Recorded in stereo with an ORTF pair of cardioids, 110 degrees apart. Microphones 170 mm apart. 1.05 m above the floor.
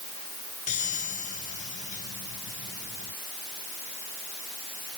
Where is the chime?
50° left.